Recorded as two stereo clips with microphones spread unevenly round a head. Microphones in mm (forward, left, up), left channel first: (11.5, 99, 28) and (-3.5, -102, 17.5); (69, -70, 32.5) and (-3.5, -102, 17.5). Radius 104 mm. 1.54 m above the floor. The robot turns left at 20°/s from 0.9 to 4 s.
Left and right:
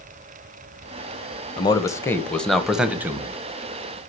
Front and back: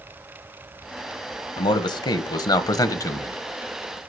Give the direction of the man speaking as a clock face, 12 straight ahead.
11 o'clock.